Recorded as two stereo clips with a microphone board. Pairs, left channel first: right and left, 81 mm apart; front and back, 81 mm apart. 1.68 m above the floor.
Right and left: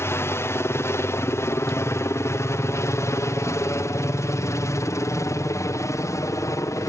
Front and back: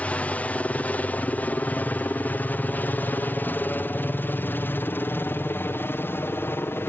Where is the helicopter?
60° right; by 6.9 s 55° right.